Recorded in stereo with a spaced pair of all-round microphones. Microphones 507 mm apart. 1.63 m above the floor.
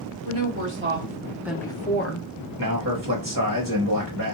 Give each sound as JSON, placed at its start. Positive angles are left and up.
{"t": 0.2, "sound": "a woman speaking", "side_deg": -30, "distance_m": 1.7}
{"t": 2.6, "sound": "a man speaking", "side_deg": -40, "distance_m": 1.0}